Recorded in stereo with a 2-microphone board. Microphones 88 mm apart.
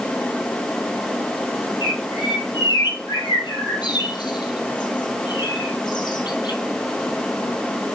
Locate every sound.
1.8 s a bird: 60° left (ahead or behind), 1.6 m